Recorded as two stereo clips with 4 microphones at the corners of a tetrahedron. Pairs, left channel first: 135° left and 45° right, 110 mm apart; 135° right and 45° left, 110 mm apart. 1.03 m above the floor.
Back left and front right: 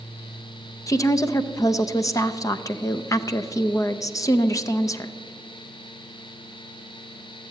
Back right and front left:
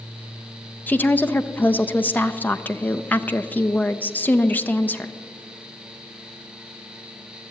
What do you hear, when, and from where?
0.9 s a woman speaking: 160° left, 0.5 m